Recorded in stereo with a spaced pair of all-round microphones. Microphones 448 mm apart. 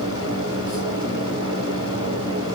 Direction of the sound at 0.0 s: 30° left (ahead or behind).